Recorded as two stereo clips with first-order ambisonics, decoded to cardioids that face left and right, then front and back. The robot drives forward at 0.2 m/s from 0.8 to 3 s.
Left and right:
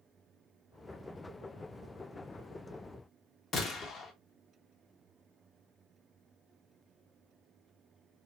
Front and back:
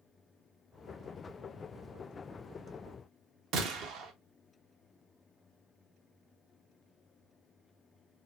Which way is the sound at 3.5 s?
150° left.